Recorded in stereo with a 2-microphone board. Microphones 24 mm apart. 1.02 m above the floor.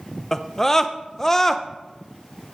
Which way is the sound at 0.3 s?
15° left (ahead or behind).